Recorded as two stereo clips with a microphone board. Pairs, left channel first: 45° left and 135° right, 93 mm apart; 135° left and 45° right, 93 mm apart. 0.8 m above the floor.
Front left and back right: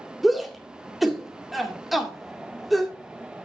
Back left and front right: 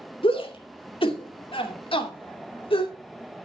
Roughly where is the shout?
Behind left.